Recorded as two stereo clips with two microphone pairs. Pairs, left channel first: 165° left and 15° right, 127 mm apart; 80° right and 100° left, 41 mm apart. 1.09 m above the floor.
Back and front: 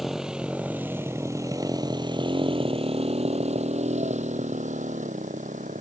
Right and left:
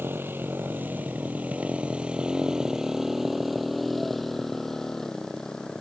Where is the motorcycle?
70° left; by 5.8 s 5° right.